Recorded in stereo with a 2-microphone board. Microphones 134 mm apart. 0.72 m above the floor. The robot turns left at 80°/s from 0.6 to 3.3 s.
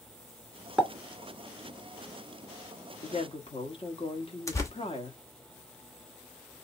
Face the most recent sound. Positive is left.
turn(degrees=25)  # may be behind; listen again after turning